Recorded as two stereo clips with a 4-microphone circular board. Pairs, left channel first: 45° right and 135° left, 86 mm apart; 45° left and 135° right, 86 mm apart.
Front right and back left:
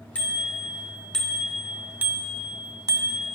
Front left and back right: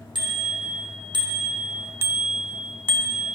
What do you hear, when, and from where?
0.1 s a bicycle bell: 115° right, 3 m; by 3.3 s 95° left, 1.5 m